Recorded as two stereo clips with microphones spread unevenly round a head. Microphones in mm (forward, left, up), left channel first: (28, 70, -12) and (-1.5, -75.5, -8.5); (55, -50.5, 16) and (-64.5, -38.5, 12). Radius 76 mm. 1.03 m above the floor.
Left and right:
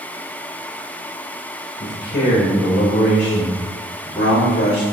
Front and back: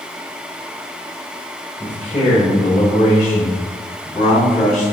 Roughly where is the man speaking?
Ahead left.